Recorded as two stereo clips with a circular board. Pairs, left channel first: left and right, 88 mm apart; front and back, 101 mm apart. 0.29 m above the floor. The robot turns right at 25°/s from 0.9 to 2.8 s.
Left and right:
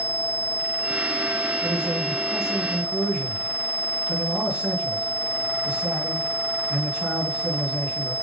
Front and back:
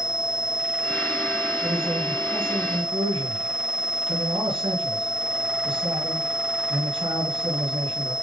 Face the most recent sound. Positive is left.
turn(degrees=-170)